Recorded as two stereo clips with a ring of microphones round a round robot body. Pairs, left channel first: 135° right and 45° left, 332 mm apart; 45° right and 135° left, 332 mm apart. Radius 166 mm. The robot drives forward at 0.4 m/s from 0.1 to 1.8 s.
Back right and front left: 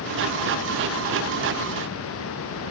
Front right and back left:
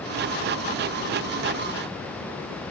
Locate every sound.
Only background noise.